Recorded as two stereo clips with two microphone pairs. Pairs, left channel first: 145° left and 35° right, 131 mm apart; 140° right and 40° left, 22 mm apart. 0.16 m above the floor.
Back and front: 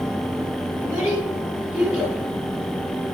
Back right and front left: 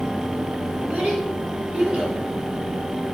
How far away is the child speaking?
About 4 m.